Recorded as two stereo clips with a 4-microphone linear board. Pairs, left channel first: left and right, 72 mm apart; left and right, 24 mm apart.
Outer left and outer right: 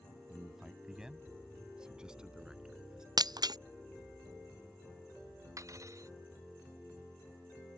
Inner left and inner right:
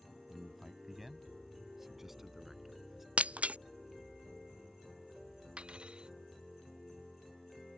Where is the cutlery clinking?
45° right (ahead or behind).